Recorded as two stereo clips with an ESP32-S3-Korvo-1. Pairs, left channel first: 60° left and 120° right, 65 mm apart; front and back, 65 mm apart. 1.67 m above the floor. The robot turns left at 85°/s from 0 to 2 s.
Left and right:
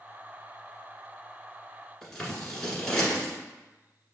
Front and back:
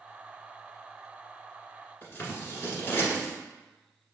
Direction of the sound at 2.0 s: 10° right.